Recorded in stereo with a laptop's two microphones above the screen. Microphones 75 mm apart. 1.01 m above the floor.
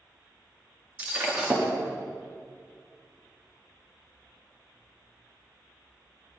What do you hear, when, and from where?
1.0 s breaking glass: 20° right (ahead or behind), 1.1 m